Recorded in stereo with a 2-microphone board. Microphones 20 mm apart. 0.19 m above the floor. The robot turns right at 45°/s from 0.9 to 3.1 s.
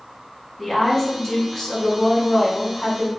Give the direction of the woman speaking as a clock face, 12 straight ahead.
12 o'clock.